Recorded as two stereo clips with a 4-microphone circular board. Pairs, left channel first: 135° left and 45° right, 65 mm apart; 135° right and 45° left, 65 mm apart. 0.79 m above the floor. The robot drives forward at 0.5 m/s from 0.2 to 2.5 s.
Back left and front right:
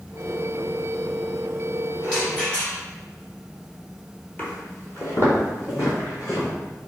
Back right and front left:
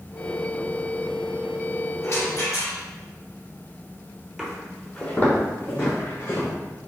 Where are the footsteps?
115° left, 0.8 m; by 6.5 s 175° left, 2.5 m.